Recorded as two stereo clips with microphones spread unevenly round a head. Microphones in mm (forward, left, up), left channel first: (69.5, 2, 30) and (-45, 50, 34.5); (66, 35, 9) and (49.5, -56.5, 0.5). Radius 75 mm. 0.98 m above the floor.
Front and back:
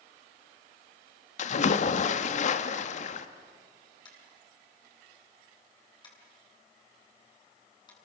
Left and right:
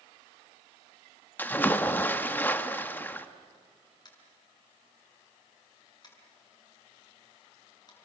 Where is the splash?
10° left, 1.3 m.